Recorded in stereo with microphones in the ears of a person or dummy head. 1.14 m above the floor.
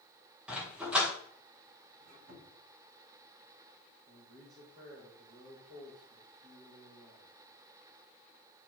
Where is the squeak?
90° right, 5 m.